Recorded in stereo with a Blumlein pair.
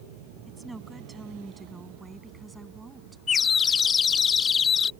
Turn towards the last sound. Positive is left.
turn(degrees=20)